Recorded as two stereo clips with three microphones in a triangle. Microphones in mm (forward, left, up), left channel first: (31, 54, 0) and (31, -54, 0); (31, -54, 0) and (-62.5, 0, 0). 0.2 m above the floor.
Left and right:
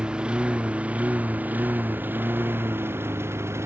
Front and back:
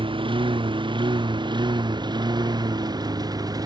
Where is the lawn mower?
170° right; by 3.7 s 155° right.